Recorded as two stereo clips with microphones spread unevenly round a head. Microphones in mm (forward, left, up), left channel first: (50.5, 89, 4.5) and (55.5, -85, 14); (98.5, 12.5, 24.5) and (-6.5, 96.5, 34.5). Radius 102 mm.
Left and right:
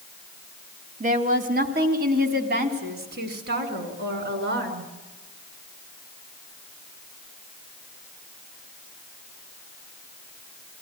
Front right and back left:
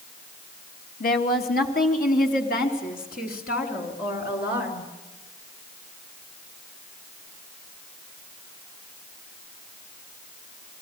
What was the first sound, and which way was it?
A woman speaking, 45° right.